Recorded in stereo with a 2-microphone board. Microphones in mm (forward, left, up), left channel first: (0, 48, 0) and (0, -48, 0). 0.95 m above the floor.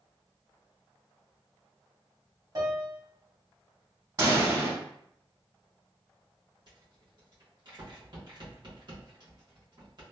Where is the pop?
45° right (ahead or behind), 1.6 m.